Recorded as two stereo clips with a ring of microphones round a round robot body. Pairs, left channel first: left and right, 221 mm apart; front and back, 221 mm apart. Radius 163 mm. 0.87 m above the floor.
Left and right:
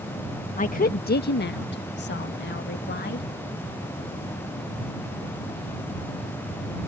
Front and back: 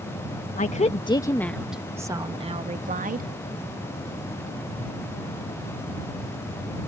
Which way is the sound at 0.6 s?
45° left.